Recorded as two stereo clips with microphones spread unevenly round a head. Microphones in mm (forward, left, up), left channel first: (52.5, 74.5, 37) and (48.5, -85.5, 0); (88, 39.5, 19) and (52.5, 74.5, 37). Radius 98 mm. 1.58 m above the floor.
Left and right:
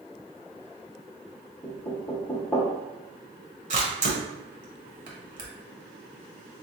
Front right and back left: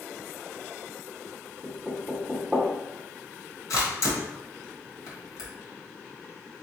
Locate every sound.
1.6 s knocking: 100° left, 0.8 m
3.7 s a camera shutter: 50° right, 1.5 m